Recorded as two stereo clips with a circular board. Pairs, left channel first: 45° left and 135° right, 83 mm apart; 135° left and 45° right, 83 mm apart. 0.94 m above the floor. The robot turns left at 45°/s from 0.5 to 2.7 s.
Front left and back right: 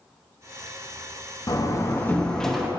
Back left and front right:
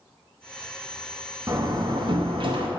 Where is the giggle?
No giggle in this recording.